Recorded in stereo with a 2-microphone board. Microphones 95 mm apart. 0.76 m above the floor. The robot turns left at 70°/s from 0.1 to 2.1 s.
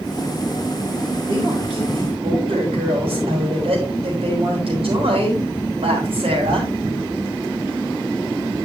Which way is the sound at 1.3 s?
45° right.